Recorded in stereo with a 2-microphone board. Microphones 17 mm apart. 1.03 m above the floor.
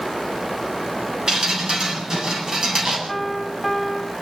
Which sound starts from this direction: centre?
A piano, at 3.1 s.